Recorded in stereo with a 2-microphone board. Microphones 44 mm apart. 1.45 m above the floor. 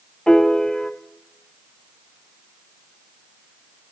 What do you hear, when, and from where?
0.3 s a piano: 15° left (ahead or behind), 1.1 m